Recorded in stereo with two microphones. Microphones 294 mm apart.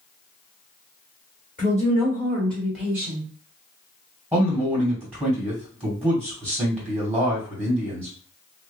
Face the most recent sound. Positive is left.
turn(degrees=5)  # may be behind; listen again after turning